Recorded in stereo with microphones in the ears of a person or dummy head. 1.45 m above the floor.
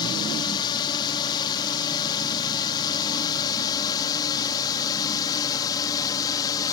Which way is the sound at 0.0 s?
20° left (ahead or behind).